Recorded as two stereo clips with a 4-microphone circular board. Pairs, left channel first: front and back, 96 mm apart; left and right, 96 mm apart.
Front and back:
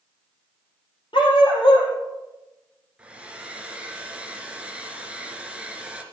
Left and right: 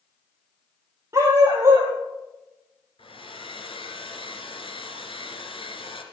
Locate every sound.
1.1 s a dog barking: 30° right, 5 m
3.0 s a hair dryer: 100° left, 2.5 m